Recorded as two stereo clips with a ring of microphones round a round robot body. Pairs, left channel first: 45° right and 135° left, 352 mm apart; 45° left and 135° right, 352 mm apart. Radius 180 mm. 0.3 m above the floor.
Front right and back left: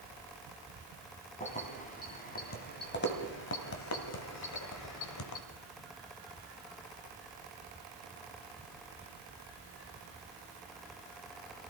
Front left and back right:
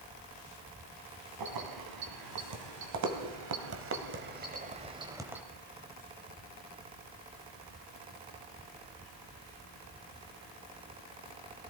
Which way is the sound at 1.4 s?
115° right.